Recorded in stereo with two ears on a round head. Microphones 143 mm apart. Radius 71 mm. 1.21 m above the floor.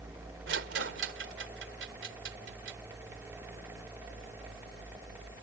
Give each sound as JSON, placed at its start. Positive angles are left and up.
{"t": 0.5, "sound": "a rattle", "side_deg": -85}